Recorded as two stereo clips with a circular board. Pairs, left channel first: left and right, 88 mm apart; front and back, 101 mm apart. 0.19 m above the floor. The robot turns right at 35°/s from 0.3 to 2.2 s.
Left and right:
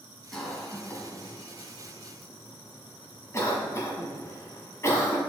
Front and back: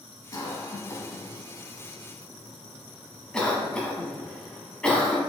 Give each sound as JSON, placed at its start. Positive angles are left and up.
{"t": 0.3, "sound": "a cough", "azimuth_deg": 10, "distance_m": 1.1}